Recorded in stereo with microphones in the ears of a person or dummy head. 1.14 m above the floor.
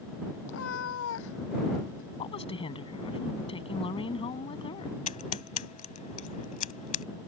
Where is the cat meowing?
75° left (ahead or behind); by 2.1 s 70° left (ahead or behind).